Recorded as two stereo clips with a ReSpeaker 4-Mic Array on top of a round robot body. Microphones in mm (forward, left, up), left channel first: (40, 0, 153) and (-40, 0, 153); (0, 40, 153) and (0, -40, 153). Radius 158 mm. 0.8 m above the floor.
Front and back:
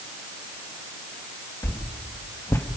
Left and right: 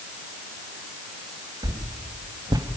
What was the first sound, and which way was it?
A whoosh, 60° right.